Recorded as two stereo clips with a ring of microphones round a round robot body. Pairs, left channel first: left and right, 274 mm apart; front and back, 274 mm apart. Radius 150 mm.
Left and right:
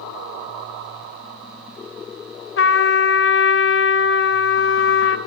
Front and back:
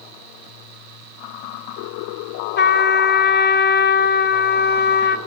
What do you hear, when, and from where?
2.6 s a trumpet: 50° left, 2 m